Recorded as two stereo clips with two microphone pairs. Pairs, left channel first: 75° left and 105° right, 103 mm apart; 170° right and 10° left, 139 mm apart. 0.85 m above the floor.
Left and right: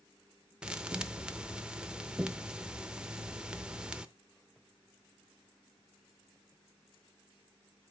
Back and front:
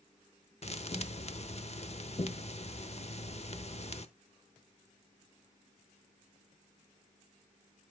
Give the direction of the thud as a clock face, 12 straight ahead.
6 o'clock.